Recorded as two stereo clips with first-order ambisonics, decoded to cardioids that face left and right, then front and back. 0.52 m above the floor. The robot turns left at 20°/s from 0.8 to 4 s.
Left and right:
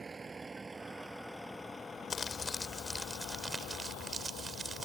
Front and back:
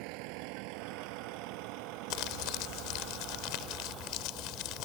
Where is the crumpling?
20° left; by 4.9 s 15° right.